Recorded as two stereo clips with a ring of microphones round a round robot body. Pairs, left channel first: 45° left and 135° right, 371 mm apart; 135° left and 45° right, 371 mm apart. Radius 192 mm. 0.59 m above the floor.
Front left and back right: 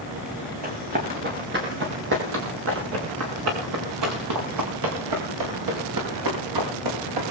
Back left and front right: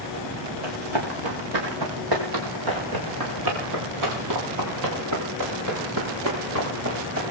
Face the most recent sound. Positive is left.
turn(degrees=-100)